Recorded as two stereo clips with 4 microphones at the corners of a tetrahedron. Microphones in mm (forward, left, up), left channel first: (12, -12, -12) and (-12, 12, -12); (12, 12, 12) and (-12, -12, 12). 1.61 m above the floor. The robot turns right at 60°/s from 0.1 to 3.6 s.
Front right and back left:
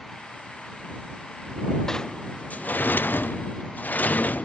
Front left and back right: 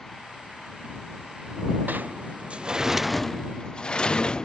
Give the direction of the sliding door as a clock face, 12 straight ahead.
4 o'clock.